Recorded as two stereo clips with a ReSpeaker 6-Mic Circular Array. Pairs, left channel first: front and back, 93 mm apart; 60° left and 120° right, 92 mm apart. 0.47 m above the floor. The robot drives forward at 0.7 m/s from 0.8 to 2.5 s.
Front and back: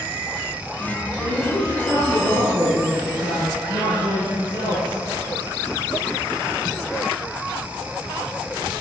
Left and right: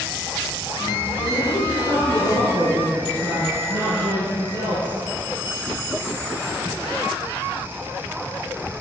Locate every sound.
1.2 s a woman speaking: 155° right, 7 m; by 5.0 s 160° right, 7.5 m